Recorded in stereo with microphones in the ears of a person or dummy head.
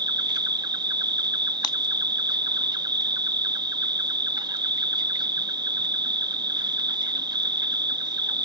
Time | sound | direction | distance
0.0 | an insect | 15° right (ahead or behind) | ?
1.6 | breaking glass | 25° left (ahead or behind) | ?